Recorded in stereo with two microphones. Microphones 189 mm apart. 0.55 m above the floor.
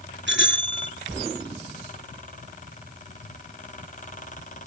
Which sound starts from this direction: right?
A bicycle bell, at 0.3 s.